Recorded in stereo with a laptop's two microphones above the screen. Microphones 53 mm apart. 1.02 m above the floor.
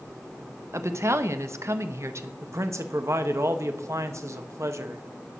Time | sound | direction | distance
0.7 | a woman speaking | 60° right (ahead or behind) | 1.0 m
2.4 | a man speaking | 60° right (ahead or behind) | 1.1 m